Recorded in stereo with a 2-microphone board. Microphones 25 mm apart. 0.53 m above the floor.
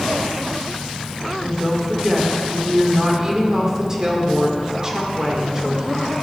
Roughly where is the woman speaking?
Right.